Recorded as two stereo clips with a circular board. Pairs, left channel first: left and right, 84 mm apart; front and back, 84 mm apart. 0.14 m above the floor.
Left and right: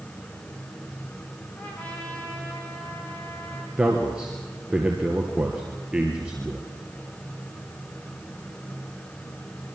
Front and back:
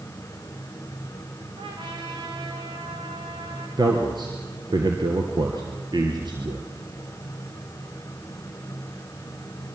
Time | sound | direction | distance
1.6 | a trumpet | 165° left | 5.5 m
3.8 | a man speaking | 165° right | 2.5 m